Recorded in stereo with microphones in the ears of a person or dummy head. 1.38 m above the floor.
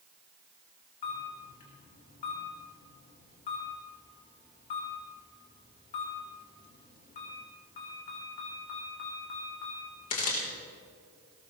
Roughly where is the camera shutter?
Left.